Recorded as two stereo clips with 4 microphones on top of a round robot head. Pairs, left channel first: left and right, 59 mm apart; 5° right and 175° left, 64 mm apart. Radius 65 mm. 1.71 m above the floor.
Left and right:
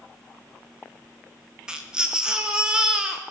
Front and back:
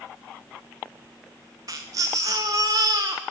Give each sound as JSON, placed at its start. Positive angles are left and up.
{"t": 1.7, "sound": "a baby crying", "azimuth_deg": -160, "distance_m": 0.8}